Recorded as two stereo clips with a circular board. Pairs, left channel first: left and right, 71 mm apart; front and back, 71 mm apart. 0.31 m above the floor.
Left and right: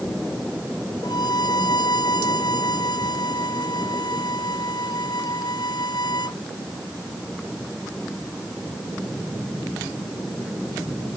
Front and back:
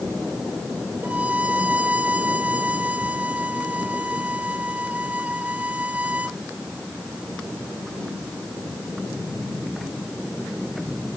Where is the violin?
110° left.